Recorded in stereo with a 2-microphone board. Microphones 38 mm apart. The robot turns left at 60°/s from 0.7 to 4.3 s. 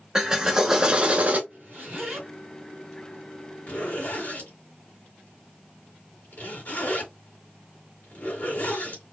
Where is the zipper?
55° right (ahead or behind), 2.5 m; by 9.0 s 55° left (ahead or behind), 2.5 m.